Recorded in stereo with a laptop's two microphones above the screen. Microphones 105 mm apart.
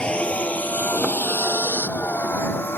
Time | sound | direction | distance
0.0 | a vehicle | 10° left (ahead or behind) | ?